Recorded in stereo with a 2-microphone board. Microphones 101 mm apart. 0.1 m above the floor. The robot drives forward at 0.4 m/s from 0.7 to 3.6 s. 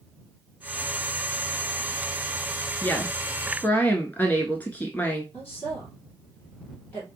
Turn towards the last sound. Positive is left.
turn(degrees=20)  # may be behind; listen again after turning